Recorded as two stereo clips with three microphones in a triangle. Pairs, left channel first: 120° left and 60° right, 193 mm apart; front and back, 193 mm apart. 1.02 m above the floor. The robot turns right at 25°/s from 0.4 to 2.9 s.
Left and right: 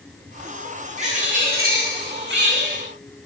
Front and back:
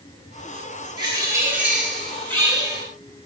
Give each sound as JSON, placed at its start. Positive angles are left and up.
{"t": 1.0, "sound": "a bird", "azimuth_deg": -115, "distance_m": 7.0}